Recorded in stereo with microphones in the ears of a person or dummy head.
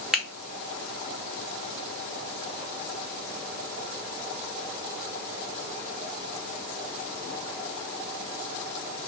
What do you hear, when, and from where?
0.1 s a finger snap: 5° right (ahead or behind), 0.6 m